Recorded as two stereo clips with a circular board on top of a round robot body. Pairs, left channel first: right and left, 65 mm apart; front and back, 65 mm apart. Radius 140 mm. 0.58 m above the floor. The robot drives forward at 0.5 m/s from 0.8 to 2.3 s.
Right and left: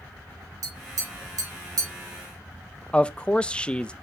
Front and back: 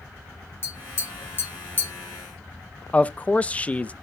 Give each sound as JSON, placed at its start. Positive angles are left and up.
{"t": 0.6, "sound": "tapping", "azimuth_deg": 55, "distance_m": 4.0}
{"t": 2.9, "sound": "a man speaking", "azimuth_deg": -35, "distance_m": 0.7}